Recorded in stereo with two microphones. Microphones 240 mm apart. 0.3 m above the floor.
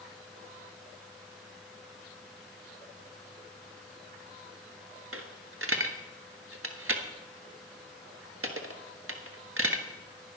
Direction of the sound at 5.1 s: 65° right (ahead or behind).